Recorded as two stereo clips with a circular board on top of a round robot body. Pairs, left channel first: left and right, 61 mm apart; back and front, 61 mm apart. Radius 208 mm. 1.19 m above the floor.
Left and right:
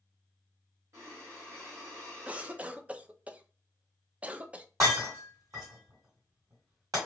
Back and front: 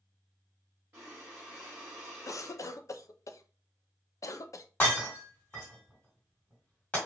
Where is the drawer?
I don't hear a drawer.